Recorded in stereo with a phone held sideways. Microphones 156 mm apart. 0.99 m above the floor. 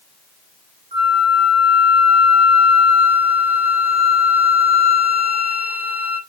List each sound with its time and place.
0.9 s a flute: 35° right (ahead or behind), 3.5 m